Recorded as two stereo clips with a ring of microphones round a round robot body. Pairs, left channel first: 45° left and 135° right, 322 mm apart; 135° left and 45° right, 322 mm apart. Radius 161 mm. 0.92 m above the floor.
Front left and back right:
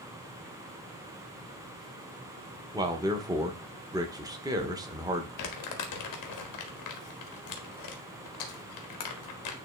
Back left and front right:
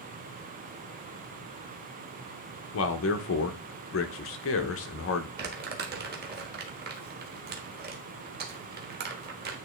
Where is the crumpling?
15° left, 1.2 m.